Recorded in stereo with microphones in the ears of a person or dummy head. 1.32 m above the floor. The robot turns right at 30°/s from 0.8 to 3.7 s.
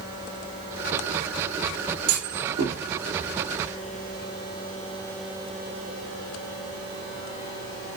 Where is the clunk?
80° right, 3.5 m; by 2.8 s 60° right (ahead or behind), 3.5 m.